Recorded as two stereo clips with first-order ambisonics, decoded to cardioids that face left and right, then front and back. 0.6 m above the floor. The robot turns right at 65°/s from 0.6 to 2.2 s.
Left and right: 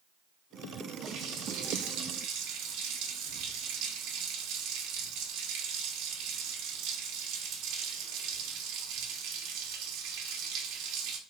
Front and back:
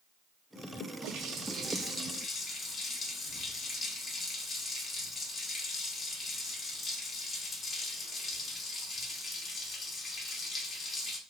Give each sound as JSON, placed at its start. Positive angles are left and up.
{"t": 1.0, "sound": "a running tap", "azimuth_deg": -145, "distance_m": 0.7}